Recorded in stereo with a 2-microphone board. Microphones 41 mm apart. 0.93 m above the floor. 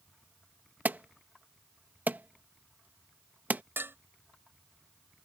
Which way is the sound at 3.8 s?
75° right (ahead or behind).